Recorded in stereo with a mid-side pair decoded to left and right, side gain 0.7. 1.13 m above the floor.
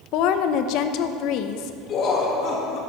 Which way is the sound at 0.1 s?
65° left.